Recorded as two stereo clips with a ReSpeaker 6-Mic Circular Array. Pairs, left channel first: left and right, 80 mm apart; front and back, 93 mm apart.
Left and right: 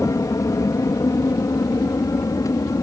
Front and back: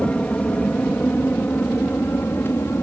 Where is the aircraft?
70° left; by 2.8 s 60° left.